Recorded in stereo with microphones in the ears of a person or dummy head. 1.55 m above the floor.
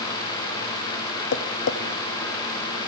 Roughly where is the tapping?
Left.